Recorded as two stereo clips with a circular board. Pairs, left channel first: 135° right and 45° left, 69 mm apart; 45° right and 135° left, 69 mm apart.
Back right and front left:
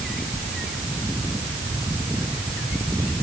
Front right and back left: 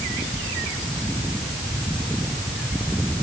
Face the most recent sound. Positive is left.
No sound to turn to.